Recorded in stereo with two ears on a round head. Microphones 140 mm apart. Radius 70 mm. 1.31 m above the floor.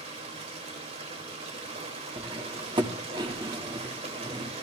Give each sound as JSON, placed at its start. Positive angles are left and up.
{"t": 0.0, "sound": "running water", "side_deg": -45, "distance_m": 2.5}
{"t": 2.2, "sound": "cutlery clinking", "side_deg": -30, "distance_m": 1.5}